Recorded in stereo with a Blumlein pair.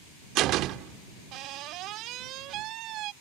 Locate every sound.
0.3 s a door slam: 35° right